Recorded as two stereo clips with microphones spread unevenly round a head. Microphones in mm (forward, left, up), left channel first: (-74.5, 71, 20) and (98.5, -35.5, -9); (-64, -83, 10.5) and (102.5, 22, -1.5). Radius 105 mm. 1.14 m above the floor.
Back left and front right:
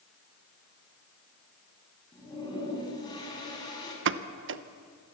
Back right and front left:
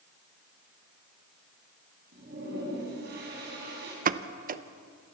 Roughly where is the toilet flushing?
Left.